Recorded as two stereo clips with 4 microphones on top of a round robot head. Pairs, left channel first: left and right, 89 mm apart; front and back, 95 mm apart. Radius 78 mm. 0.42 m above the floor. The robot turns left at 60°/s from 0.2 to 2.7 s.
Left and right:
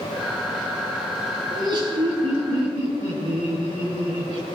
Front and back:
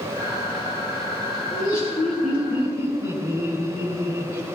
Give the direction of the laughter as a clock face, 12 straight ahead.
2 o'clock.